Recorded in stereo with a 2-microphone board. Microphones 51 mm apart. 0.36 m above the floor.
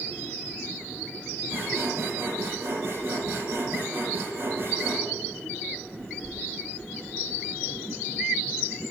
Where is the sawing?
55° right (ahead or behind), 4 m.